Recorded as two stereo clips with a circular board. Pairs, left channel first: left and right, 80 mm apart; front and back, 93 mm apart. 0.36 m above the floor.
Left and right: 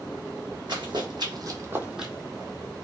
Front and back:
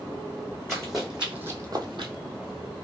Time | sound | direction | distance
0.7 | running footsteps | 85° right | 1.3 m